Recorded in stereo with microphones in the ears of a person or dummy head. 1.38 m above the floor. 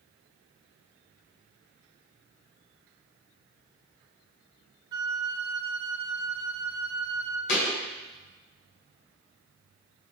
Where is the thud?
65° left (ahead or behind), 2.5 m.